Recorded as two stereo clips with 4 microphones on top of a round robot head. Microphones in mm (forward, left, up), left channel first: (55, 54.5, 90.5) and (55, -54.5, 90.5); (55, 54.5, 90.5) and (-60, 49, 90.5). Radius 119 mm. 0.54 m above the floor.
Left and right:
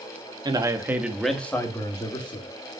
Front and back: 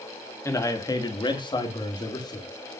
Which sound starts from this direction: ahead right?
A man speaking, at 0.5 s.